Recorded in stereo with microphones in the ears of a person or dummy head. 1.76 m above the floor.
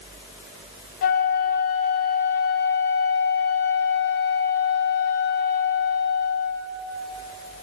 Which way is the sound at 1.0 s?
55° left (ahead or behind).